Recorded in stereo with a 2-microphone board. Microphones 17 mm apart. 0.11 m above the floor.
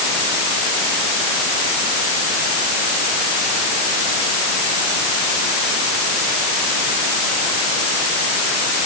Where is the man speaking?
No man speaking in this recording.